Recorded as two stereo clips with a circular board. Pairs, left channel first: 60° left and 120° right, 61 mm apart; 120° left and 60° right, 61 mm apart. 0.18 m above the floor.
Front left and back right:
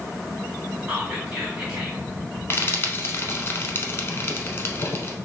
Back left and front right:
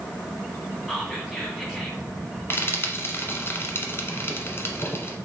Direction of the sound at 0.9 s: 170° right.